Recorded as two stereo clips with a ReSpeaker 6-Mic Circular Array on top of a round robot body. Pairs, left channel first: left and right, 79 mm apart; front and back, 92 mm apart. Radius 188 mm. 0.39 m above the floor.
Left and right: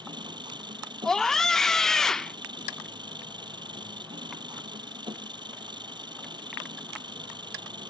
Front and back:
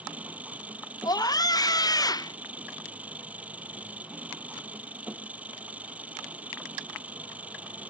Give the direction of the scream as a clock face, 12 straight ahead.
12 o'clock.